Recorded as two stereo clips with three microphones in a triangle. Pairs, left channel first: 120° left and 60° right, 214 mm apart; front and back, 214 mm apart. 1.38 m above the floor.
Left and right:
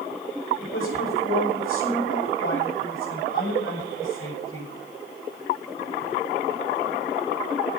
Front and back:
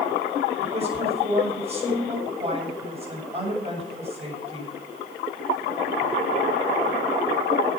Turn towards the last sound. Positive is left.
turn(degrees=120)